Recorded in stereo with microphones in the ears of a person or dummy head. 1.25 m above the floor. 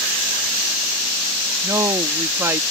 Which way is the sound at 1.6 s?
20° right (ahead or behind).